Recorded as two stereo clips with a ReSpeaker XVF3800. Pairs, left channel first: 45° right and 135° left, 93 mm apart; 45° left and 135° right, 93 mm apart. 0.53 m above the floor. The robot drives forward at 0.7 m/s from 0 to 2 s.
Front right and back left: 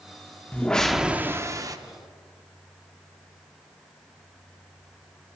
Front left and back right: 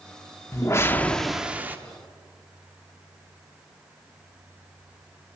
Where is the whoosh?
20° left, 0.6 m; by 1.8 s 165° left, 0.7 m.